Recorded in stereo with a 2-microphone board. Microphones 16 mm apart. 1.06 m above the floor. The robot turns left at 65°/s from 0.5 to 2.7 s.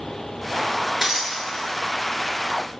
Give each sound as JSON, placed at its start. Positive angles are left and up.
{"t": 1.0, "sound": "breaking glass", "side_deg": -30, "distance_m": 1.2}